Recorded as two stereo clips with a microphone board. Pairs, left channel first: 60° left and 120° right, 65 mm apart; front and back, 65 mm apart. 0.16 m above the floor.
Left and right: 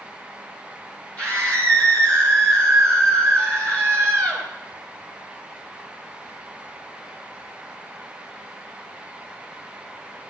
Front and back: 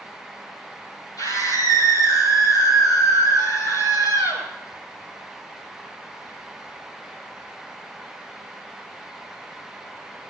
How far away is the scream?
About 6.5 m.